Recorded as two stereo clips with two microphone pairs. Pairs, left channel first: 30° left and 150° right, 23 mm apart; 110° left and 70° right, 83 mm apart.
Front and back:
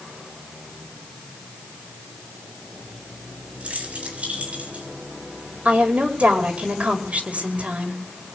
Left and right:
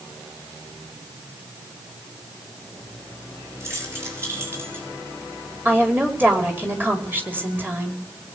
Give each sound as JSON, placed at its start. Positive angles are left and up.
{"t": 3.6, "sound": "keys jangling", "azimuth_deg": -130, "distance_m": 8.0}
{"t": 5.7, "sound": "a woman speaking", "azimuth_deg": -140, "distance_m": 5.0}